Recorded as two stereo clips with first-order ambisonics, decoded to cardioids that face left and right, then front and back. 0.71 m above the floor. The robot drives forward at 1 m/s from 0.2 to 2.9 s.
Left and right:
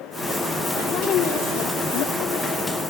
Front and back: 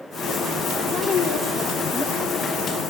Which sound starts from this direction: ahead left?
A woman speaking, at 0.9 s.